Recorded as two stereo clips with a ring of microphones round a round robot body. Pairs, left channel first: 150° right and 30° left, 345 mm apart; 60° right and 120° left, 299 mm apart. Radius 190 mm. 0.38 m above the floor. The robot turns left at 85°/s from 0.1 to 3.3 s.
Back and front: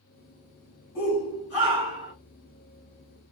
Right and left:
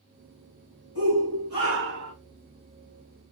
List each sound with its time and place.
0.9 s a shout: 115° right, 3.5 m; by 2.1 s 145° left, 3.5 m